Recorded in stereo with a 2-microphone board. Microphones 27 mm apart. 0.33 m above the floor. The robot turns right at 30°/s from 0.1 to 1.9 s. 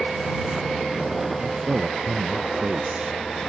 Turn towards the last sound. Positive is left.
turn(degrees=-55)  # may be behind; listen again after turning